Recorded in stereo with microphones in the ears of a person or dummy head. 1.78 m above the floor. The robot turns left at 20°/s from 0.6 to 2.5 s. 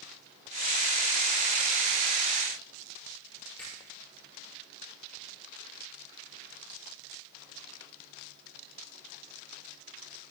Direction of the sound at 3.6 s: 5° left (ahead or behind).